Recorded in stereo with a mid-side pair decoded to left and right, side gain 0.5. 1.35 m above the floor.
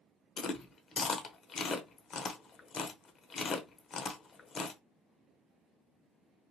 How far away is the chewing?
About 0.7 m.